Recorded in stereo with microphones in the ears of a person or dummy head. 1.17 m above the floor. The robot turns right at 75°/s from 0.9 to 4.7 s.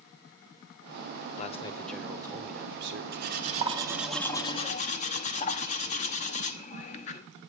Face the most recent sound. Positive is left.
turn(degrees=45)